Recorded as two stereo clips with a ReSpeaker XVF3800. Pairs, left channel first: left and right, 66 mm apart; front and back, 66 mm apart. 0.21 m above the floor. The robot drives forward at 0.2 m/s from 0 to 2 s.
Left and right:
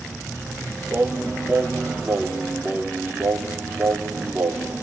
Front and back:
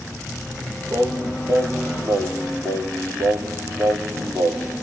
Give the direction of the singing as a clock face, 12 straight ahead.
5 o'clock.